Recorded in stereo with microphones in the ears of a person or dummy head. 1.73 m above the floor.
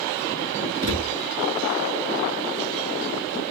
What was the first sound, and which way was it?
A thud, 50° right (ahead or behind).